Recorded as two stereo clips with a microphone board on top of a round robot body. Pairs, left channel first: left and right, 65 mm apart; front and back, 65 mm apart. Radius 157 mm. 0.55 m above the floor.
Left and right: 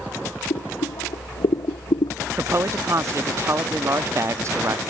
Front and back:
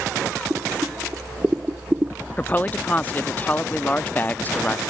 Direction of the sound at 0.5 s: 105° left.